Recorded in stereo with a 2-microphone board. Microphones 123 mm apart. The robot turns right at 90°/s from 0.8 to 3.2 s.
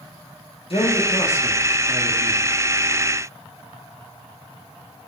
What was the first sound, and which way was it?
A man speaking, 105° left.